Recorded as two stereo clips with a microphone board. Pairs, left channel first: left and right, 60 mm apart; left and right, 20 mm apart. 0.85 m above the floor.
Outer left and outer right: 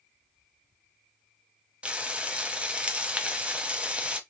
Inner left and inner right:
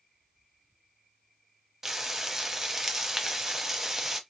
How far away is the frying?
About 0.7 m.